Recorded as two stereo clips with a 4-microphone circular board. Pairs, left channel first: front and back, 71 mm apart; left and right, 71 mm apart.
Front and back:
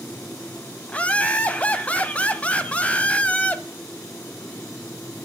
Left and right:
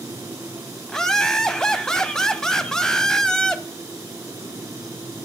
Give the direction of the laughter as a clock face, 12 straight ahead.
11 o'clock.